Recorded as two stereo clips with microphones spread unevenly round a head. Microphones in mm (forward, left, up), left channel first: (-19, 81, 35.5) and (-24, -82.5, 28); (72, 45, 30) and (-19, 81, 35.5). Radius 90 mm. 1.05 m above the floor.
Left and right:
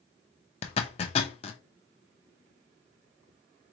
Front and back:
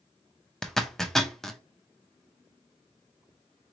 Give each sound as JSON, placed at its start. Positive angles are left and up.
{"t": 0.6, "sound": "a zipper", "azimuth_deg": 65, "distance_m": 0.6}